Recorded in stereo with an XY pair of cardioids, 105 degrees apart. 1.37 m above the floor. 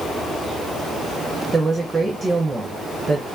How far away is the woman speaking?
About 1.0 m.